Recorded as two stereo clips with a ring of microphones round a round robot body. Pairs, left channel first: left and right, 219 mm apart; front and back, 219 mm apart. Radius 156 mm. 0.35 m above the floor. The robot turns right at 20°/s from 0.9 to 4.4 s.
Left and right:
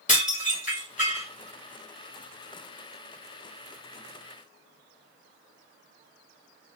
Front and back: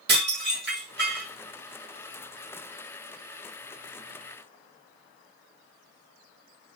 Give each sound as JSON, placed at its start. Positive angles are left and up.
{"t": 0.1, "sound": "dishes clattering", "azimuth_deg": 145, "distance_m": 2.0}